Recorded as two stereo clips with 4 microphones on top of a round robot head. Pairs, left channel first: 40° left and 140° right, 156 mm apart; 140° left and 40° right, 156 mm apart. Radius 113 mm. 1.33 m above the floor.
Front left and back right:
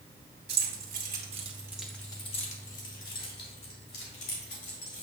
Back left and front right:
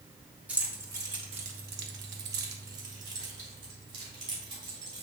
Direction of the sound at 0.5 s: 120° right.